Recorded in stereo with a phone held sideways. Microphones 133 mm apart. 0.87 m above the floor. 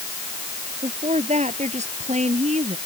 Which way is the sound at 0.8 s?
60° right (ahead or behind).